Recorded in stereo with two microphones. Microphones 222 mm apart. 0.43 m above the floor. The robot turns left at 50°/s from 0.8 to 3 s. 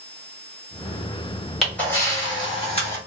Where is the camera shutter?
Centre (ahead or behind), 1.3 m; by 3.0 s 30° left (ahead or behind), 1.3 m.